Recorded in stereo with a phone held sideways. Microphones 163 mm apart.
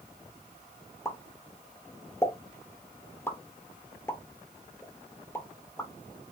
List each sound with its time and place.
1.1 s a pop: 15° left (ahead or behind), 1.1 m